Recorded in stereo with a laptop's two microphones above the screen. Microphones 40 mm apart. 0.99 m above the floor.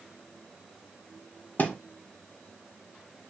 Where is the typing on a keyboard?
I don't hear typing on a keyboard.